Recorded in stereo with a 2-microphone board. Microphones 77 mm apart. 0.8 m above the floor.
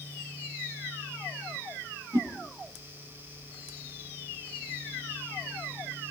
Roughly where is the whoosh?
Right.